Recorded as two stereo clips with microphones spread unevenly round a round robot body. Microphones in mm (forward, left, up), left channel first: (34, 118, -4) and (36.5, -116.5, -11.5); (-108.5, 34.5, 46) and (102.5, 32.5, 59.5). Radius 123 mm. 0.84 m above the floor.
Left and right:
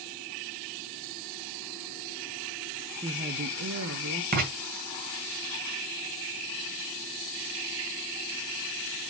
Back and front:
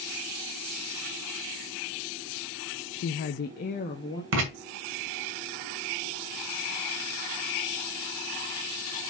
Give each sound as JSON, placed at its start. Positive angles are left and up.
{"t": 2.9, "sound": "a woman speaking", "azimuth_deg": -165, "distance_m": 0.5}
{"t": 4.3, "sound": "writing", "azimuth_deg": -40, "distance_m": 2.5}